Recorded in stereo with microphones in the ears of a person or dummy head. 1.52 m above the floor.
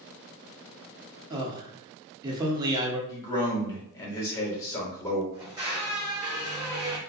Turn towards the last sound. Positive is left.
turn(degrees=-20)  # may be behind; listen again after turning